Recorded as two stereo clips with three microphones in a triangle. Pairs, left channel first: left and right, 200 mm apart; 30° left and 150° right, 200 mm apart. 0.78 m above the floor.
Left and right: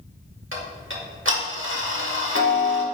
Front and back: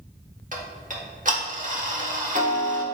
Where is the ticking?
100° right, 1.2 m.